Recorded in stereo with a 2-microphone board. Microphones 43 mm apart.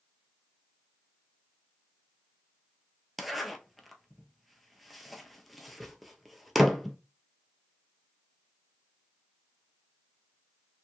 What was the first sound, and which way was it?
A zipper, centre (ahead or behind).